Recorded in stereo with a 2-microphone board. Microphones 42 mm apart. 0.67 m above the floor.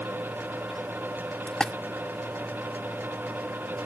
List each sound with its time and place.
1.5 s a splash: 20° left (ahead or behind)